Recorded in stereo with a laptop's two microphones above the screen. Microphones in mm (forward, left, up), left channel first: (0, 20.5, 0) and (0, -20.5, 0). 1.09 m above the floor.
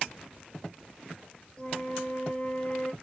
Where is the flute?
20° left (ahead or behind), 0.5 m.